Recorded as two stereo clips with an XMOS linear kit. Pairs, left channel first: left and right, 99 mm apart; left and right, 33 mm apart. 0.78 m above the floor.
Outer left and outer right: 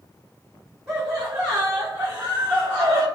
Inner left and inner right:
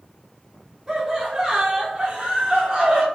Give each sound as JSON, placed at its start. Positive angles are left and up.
{"t": 0.9, "sound": "laughter", "side_deg": -5, "distance_m": 1.2}